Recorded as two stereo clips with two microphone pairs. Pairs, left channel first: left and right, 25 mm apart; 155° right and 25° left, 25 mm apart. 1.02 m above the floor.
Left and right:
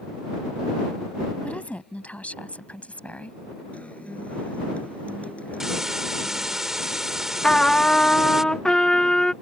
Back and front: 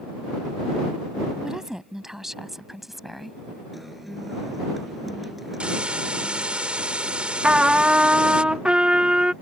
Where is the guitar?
105° left.